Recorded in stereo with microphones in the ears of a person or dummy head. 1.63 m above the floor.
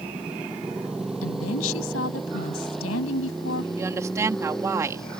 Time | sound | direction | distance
0.0 | a motorcycle | centre (ahead or behind) | ?
1.2 | a woman speaking | 75° left (ahead or behind) | ?
3.8 | a woman speaking | 10° right (ahead or behind) | ?